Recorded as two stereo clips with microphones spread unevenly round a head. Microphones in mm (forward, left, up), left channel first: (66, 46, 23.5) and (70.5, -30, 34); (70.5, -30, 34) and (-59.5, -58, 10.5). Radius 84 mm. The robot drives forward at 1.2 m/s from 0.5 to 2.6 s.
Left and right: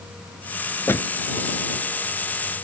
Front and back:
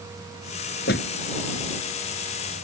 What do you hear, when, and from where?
0.9 s a door slam: 35° left